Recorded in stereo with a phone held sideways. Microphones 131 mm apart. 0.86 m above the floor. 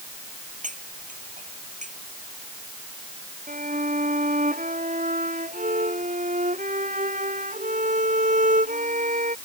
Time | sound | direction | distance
0.6 | cutlery clinking | 75° right (ahead or behind) | ?
3.5 | a violin | 80° right | ?